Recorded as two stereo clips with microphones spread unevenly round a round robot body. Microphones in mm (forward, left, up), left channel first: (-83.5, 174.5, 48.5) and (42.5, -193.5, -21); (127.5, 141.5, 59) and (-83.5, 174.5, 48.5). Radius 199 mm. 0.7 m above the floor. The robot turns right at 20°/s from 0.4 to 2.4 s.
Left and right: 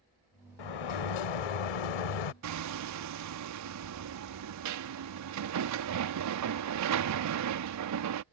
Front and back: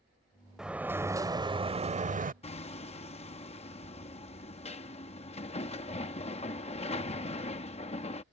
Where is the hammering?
70° right.